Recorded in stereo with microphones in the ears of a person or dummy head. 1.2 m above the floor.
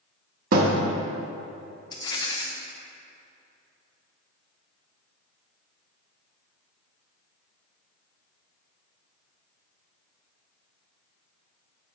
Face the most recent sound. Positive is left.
turn(degrees=25)  # may be behind; listen again after turning